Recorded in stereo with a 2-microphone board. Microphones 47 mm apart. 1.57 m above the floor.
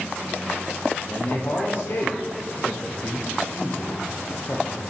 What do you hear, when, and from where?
1.1 s a man speaking: 50° left (ahead or behind), 1.0 m